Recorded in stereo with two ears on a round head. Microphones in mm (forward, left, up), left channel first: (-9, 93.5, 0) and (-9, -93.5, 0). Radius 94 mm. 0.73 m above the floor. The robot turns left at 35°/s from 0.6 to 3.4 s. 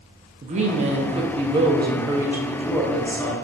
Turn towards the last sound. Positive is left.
turn(degrees=160)